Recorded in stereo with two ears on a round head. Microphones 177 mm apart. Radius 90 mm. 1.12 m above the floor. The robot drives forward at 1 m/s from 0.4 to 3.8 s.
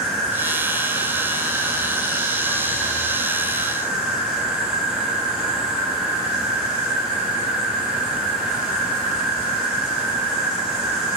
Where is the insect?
70° right (ahead or behind), 6.5 m; by 11.2 s 50° right (ahead or behind), 8 m.